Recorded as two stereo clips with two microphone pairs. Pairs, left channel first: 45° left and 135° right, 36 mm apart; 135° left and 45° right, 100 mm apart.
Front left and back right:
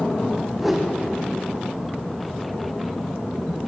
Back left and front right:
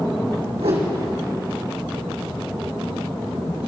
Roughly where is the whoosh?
Ahead right.